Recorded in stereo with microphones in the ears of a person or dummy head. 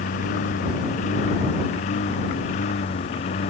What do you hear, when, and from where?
0.0 s a lawn mower: 50° left (ahead or behind); by 3.5 s 45° left (ahead or behind)